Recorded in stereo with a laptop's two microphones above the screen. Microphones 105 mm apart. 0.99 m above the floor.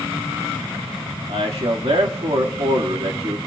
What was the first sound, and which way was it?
A man speaking, 75° right (ahead or behind).